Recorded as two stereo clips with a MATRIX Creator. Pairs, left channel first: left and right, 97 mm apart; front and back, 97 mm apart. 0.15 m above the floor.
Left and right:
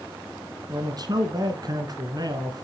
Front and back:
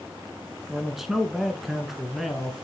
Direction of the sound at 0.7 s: 95° right.